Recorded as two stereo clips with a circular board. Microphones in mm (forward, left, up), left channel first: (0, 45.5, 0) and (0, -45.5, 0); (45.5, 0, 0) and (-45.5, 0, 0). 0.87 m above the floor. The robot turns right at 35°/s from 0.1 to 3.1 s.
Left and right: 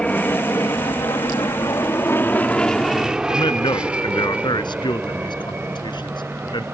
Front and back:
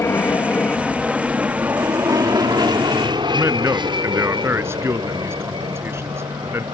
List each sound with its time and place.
0.0 s an aircraft: 20° left; by 6.7 s 160° right
3.3 s a man speaking: 120° left